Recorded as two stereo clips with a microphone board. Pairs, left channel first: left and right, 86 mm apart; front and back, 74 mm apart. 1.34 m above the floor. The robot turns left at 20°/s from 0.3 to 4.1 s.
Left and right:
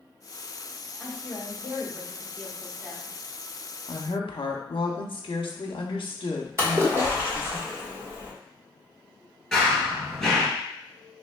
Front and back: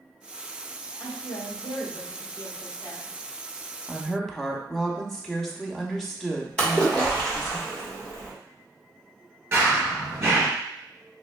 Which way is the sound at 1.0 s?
25° left.